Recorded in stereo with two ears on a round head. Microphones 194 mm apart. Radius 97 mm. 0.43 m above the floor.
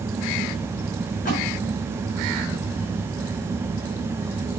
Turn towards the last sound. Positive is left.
turn(degrees=40)  # may be behind; listen again after turning